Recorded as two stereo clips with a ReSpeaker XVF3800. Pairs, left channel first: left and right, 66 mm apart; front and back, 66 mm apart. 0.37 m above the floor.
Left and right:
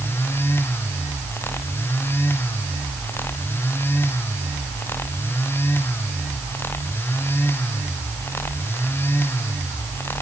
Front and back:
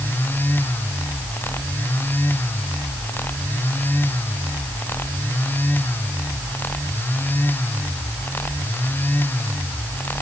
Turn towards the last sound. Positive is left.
No sound to turn to.